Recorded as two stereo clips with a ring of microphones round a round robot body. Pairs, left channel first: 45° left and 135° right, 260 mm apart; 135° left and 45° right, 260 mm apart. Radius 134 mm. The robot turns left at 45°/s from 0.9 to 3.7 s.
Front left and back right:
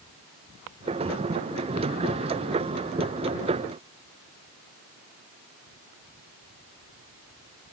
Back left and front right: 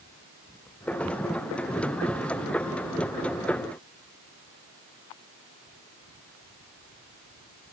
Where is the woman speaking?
I don't hear a woman speaking.